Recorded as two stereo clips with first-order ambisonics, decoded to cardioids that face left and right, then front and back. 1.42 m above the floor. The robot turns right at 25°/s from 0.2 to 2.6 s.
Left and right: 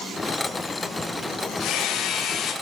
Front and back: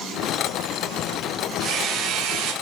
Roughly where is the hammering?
Behind left.